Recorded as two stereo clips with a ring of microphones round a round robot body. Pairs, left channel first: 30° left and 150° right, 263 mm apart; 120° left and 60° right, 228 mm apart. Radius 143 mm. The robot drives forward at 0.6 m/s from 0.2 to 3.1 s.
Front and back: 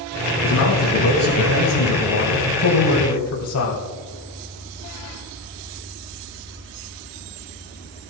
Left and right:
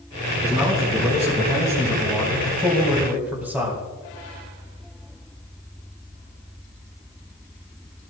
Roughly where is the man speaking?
Ahead.